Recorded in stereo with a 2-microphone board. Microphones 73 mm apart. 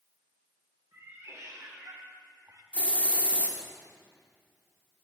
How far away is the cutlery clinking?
No cutlery clinking in this recording.